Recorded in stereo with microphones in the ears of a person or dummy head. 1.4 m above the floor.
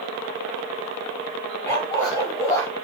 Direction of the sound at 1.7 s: 15° left (ahead or behind).